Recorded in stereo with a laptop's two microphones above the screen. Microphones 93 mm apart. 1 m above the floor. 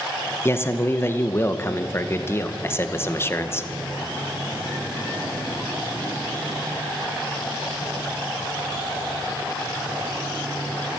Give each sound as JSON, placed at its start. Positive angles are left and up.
{"t": 0.5, "sound": "a man speaking", "side_deg": 25, "distance_m": 0.9}